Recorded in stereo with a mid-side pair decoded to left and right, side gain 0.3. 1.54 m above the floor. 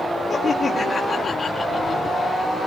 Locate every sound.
0.3 s laughter: 55° left, 4.5 m